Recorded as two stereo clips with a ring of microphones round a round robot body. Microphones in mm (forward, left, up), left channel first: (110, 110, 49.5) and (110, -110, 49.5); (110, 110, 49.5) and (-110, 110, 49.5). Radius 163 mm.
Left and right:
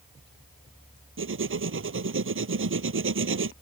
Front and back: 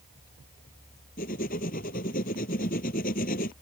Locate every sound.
1.2 s writing: 65° right